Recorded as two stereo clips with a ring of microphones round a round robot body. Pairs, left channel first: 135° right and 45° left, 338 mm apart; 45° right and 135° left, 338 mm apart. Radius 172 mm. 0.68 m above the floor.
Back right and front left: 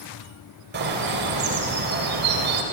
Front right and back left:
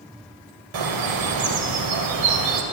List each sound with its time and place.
0.7 s a bird: 105° left, 3 m